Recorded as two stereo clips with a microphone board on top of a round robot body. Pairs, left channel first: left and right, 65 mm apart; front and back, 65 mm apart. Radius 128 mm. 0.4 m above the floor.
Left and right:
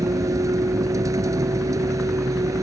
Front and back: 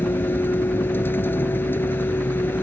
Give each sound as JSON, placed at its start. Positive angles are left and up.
{"t": 0.0, "sound": "a vehicle", "azimuth_deg": -55}